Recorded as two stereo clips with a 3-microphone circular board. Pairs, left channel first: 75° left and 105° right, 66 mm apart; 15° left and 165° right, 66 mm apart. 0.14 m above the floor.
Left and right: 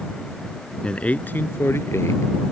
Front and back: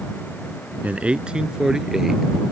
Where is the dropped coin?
I don't hear a dropped coin.